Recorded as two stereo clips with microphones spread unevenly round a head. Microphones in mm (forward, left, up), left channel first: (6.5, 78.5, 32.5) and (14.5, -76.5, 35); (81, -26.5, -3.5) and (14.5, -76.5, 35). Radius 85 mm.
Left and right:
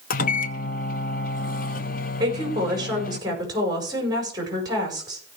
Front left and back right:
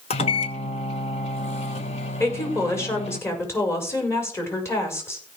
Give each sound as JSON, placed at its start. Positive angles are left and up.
{"t": 0.1, "sound": "a microwave", "azimuth_deg": 65, "distance_m": 1.0}
{"t": 2.2, "sound": "a woman speaking", "azimuth_deg": -20, "distance_m": 5.5}